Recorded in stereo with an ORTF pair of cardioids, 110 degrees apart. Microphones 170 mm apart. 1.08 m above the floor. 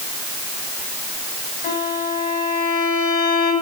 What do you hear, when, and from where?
1.6 s a violin: 70° left, 8 m